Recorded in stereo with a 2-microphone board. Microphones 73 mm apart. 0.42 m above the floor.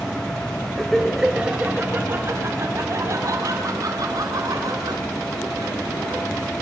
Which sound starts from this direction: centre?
Laughter, at 0.8 s.